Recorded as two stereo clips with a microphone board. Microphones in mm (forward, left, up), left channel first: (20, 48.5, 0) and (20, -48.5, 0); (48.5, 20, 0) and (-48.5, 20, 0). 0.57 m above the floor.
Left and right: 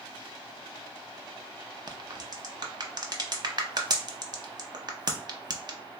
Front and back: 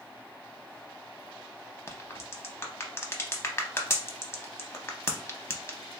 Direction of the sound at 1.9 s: 55° right.